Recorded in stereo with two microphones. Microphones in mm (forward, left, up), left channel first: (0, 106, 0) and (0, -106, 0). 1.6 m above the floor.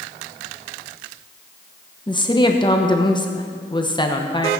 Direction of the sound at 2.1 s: 20° left (ahead or behind).